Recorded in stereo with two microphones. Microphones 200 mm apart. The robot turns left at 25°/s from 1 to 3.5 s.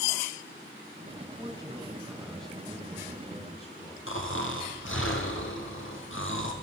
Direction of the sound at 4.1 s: 85° left.